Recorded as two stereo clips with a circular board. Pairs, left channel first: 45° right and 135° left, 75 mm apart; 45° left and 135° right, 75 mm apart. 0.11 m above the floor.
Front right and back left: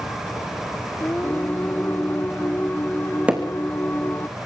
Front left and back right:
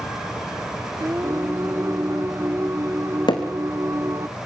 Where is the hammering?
65° left, 3 m.